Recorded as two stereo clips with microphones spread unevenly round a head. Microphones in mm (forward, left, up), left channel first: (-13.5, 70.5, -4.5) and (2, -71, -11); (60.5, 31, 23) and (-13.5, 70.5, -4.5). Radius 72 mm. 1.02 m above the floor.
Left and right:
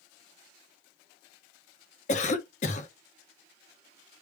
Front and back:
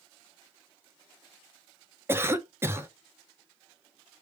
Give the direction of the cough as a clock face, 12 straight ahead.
8 o'clock.